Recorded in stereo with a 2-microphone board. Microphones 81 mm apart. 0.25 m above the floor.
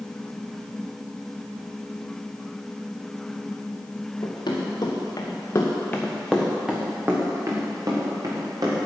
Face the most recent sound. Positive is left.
turn(degrees=-55)  # may be behind; listen again after turning